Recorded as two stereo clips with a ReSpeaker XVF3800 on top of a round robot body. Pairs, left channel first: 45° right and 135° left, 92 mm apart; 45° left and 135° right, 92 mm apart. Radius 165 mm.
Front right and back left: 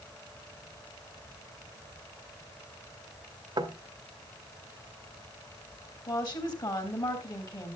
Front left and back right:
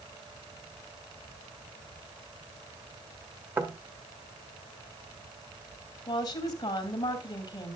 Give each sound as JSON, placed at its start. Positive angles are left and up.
{"t": 3.6, "sound": "knocking", "azimuth_deg": 165, "distance_m": 1.6}
{"t": 6.1, "sound": "a woman speaking", "azimuth_deg": 0, "distance_m": 3.5}